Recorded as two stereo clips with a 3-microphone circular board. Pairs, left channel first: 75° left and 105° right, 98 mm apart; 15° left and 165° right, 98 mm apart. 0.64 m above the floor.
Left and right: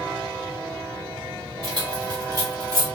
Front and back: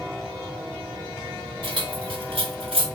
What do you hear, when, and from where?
1.6 s keys jangling: 135° right, 2 m; by 2.9 s 165° right, 2.0 m